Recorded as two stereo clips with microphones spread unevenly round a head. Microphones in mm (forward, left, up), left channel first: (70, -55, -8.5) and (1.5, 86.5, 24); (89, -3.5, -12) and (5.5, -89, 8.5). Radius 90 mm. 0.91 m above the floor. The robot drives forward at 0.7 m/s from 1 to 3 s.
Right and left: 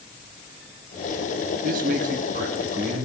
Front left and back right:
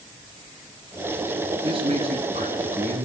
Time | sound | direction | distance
1.6 | a man speaking | 165° left | 1.6 m